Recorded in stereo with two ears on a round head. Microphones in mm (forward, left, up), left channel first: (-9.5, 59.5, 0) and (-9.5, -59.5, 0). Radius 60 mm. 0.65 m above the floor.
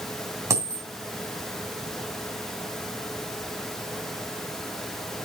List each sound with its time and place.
0.5 s a dropped coin: 20° right (ahead or behind), 2.5 m